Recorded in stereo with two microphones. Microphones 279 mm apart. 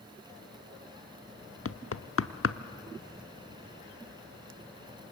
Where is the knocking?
50° left (ahead or behind), 0.8 m.